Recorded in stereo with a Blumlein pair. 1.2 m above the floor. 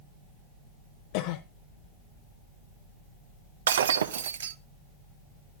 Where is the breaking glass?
65° right, 0.7 m.